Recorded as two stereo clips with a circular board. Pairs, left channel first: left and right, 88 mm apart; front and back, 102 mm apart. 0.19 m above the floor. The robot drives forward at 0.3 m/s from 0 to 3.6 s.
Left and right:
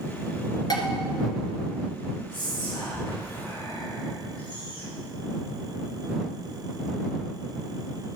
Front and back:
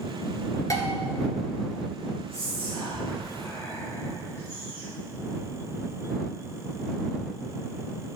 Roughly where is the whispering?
Ahead left.